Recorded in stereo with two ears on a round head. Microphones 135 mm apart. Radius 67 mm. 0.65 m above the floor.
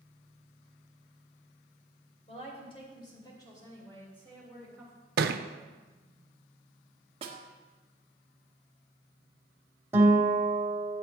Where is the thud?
65° right (ahead or behind), 0.6 m.